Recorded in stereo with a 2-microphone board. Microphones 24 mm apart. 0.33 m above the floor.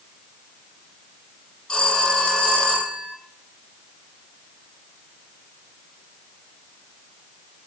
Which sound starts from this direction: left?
A phone ringing, at 1.7 s.